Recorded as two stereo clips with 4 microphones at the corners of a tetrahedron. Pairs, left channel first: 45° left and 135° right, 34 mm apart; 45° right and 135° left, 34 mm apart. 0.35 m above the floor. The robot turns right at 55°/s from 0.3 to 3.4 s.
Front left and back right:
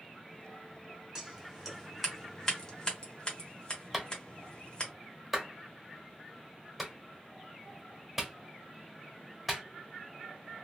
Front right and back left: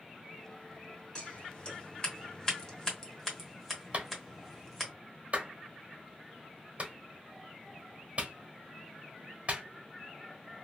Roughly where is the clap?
Behind left.